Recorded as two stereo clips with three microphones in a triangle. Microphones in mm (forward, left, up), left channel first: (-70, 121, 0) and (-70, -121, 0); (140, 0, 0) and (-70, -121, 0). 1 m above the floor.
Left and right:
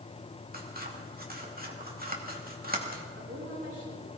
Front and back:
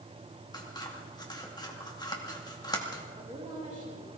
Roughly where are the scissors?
Ahead right.